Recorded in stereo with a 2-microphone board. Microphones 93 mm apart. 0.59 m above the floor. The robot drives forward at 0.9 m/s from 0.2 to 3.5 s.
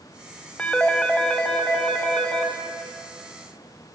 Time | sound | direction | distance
0.6 | a phone ringing | 15° left (ahead or behind) | 1.7 m